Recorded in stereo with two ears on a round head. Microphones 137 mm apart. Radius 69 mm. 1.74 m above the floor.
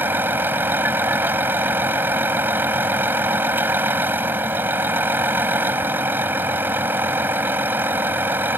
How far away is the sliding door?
I don't hear a sliding door.